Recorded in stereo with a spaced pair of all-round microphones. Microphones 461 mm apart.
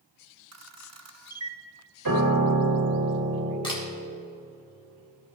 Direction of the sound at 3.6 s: 10° left (ahead or behind).